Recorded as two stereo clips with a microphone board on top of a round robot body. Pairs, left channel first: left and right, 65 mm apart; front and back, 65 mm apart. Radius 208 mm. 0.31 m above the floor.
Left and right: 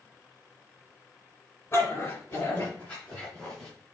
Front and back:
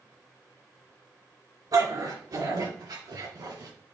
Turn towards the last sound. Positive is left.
turn(degrees=175)